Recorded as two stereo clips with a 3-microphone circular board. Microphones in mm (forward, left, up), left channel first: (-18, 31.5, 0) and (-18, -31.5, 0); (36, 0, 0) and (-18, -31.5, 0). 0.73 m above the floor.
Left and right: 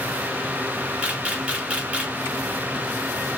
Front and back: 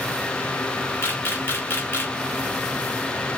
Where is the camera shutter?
20° right, 1.3 m.